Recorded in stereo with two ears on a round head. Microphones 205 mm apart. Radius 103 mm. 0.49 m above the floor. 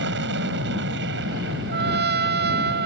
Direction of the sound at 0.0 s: 50° right (ahead or behind).